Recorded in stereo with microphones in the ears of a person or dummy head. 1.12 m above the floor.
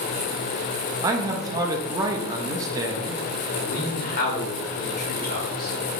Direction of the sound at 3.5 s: 40° left (ahead or behind).